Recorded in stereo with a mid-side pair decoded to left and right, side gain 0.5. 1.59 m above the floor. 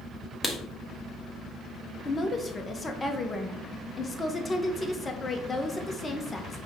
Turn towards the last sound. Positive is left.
turn(degrees=25)